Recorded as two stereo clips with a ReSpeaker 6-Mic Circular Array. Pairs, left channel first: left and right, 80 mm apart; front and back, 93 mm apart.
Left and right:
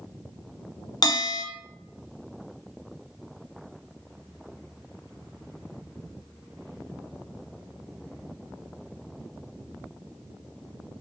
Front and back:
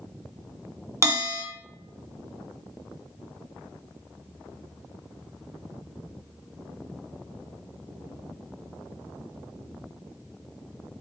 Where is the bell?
120° left, 1.2 m.